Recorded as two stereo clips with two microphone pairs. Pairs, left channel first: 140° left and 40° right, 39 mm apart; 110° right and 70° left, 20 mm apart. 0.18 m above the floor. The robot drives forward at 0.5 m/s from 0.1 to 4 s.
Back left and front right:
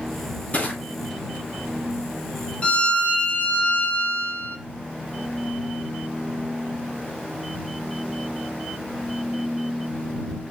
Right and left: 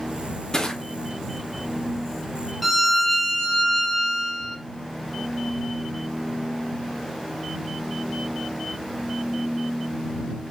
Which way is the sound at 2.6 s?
145° left.